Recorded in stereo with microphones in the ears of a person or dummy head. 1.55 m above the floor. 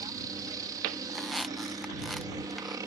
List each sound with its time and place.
0.0 s a helicopter: 20° right (ahead or behind)
1.1 s a squeak: centre (ahead or behind)